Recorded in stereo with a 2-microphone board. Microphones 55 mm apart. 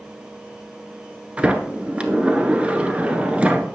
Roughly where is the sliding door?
Right.